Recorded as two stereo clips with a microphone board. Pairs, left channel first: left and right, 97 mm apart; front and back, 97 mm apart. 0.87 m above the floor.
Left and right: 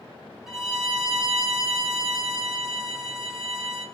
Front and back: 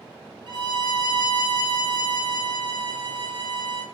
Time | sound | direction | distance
0.5 | a violin | 175° right | 1.3 m